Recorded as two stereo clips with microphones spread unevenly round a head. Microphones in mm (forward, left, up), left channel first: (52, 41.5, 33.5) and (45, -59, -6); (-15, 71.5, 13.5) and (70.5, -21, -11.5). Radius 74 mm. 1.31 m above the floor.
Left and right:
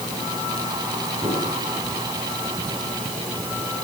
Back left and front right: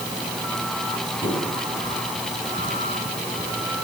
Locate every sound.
1.2 s a squeak: 170° right, 7 m